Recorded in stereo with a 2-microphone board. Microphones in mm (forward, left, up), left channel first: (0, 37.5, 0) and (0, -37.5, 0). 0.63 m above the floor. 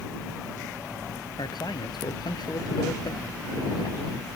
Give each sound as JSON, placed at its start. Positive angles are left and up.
{"t": 1.4, "sound": "a man speaking", "side_deg": 70}